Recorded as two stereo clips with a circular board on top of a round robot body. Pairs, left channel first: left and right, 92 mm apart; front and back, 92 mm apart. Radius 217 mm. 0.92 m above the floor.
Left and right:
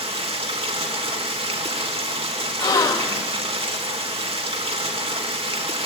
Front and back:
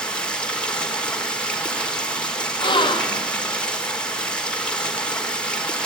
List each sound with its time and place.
0.0 s running water: 80° right, 3 m
2.6 s a gasp: 40° left, 1.7 m